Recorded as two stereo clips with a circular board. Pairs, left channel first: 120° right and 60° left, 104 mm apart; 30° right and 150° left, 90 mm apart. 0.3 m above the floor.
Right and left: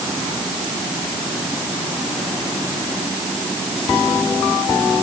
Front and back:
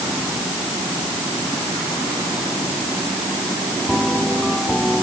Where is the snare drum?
I don't hear a snare drum.